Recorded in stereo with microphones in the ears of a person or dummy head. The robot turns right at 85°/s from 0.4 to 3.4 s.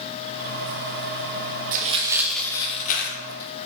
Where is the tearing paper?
45° right (ahead or behind), 1.4 m; by 3.7 s 70° left (ahead or behind), 1.4 m.